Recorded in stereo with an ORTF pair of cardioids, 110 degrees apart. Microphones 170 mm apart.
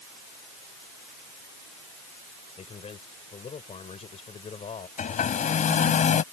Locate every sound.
2.6 s a man speaking: 40° left
5.0 s a hair dryer: 45° left